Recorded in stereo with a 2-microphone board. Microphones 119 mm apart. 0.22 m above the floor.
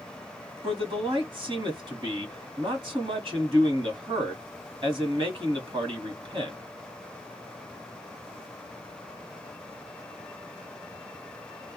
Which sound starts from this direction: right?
A man speaking, at 0.6 s.